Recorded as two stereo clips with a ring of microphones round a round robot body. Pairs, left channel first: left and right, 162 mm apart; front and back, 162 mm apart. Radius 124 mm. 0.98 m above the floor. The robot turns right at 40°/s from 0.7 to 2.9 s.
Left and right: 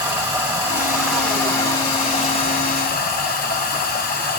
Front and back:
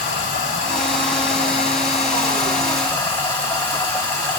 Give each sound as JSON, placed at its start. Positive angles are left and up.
{"t": 0.0, "sound": "running water", "azimuth_deg": -15, "distance_m": 4.0}